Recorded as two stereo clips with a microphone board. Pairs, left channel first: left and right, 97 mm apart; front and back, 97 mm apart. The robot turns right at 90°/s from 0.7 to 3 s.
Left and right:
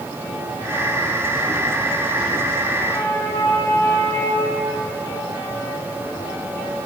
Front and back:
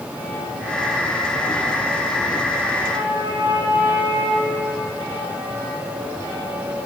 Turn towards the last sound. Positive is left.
turn(degrees=150)